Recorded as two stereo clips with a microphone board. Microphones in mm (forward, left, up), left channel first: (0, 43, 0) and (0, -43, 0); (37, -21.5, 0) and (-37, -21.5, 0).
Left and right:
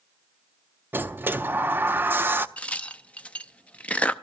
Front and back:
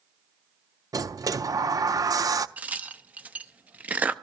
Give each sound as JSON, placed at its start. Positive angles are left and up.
{"t": 0.9, "sound": "a sliding door", "azimuth_deg": -150, "distance_m": 0.5}
{"t": 2.6, "sound": "a crack", "azimuth_deg": 145, "distance_m": 0.6}